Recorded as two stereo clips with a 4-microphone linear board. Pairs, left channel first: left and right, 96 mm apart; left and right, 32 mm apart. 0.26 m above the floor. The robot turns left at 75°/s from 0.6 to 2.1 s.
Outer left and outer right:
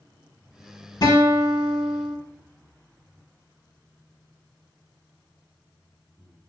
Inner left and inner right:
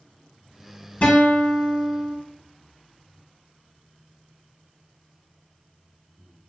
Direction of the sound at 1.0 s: 115° left.